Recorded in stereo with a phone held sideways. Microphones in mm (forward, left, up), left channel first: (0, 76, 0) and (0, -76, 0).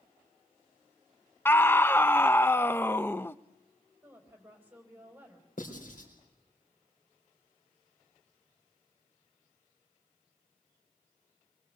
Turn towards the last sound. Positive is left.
turn(degrees=65)  # may be behind; listen again after turning